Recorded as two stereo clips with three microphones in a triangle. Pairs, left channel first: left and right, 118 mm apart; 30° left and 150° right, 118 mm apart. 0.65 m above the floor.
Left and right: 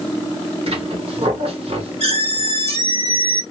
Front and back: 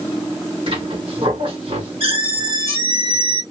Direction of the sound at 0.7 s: 115° right.